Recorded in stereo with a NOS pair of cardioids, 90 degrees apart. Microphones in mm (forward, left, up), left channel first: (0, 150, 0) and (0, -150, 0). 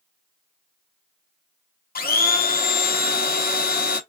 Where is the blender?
30° left, 1.1 m.